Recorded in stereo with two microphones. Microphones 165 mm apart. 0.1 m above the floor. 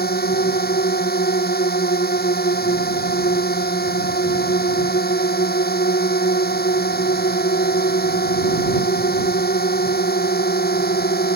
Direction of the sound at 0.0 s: 70° left (ahead or behind).